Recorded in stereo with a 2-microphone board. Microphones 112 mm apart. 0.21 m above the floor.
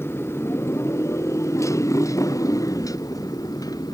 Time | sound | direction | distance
0.0 | a motorcycle | 20° left (ahead or behind) | ?